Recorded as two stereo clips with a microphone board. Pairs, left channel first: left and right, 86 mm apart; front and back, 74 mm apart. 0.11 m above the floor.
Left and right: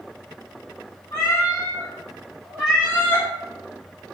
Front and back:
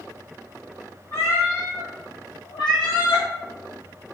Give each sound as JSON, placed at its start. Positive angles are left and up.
{"t": 1.1, "sound": "a cat meowing", "azimuth_deg": 55, "distance_m": 1.2}